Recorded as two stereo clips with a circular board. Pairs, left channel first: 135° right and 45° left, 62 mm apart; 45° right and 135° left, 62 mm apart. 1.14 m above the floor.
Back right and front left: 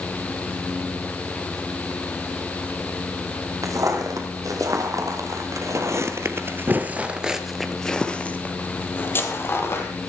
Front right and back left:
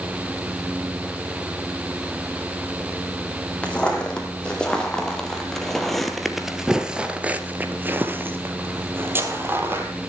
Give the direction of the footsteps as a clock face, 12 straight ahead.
11 o'clock.